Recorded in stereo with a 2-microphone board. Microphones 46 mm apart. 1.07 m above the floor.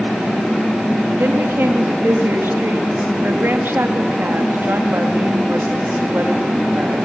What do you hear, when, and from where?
1.2 s a woman speaking: 55° right (ahead or behind), 2 m